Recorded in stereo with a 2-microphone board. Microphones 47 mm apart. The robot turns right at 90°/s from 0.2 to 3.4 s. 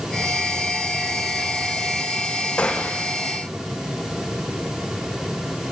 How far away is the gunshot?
About 4.5 m.